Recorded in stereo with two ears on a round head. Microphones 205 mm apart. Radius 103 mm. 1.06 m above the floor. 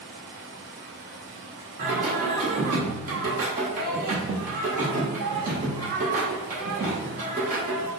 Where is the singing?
35° right (ahead or behind), 1.1 m.